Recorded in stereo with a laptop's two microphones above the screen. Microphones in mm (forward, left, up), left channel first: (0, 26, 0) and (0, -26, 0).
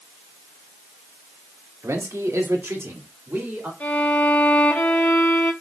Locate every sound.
1.8 s a man speaking: 80° right, 2 m; by 3.7 s 50° right (ahead or behind), 3 m
3.8 s a violin: 35° left (ahead or behind), 3 m